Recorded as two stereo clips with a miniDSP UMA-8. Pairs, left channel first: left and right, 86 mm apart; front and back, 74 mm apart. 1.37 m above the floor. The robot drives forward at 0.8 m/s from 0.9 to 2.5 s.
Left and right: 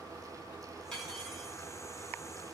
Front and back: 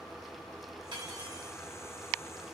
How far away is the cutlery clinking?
About 6.5 m.